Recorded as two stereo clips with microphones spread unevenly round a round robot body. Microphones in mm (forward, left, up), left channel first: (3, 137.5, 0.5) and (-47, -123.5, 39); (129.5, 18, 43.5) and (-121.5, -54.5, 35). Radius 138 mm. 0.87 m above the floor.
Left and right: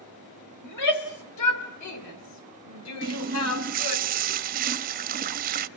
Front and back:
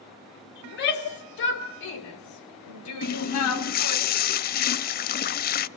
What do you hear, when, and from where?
0.6 s a shout: 65° left, 3.5 m; by 4.0 s 40° left, 3 m
3.0 s a running tap: 40° right, 0.5 m